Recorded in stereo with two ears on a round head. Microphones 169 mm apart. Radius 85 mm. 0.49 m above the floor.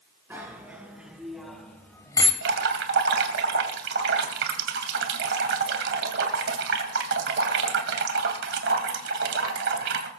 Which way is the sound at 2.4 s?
65° right (ahead or behind).